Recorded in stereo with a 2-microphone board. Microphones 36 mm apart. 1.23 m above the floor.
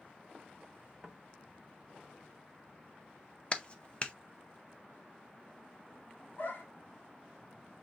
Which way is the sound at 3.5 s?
30° left (ahead or behind).